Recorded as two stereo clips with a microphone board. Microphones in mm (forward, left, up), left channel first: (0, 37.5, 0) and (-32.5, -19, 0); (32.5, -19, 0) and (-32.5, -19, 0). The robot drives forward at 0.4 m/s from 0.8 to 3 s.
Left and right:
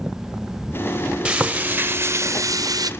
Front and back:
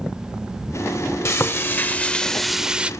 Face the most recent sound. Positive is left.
turn(degrees=-110)